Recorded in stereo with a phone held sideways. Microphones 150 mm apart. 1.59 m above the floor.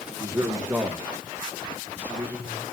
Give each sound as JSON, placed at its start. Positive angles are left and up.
{"t": 0.2, "sound": "a man speaking", "side_deg": -20, "distance_m": 1.4}